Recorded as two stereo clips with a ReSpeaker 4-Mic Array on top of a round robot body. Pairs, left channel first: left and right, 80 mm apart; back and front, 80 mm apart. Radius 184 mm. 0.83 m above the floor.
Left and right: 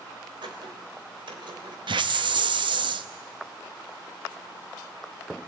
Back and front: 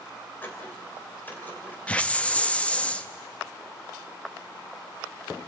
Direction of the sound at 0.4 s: 110° right.